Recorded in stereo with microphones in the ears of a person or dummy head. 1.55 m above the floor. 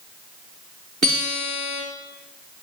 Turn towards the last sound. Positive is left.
turn(degrees=-50)  # may be behind; listen again after turning